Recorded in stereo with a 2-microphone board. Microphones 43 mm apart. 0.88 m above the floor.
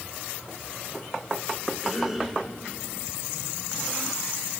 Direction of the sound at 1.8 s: 5° right (ahead or behind).